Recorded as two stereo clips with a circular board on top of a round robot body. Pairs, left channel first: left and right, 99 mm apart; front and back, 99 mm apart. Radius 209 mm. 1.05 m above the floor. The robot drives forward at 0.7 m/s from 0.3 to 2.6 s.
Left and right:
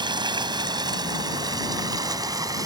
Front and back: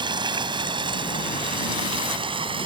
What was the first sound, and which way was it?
Running water, 135° right.